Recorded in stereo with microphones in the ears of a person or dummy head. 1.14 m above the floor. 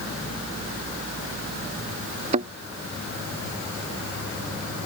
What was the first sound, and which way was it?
A thud, 35° right (ahead or behind).